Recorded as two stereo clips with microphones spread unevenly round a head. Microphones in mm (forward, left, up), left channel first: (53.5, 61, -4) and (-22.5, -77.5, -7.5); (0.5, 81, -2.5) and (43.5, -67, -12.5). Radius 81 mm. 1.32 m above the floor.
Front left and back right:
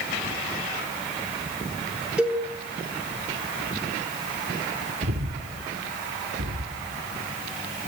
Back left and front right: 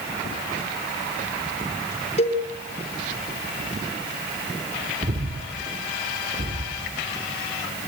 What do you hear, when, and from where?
2.2 s a cowbell: 155° left, 5.5 m
5.0 s breathing: 120° right, 2.5 m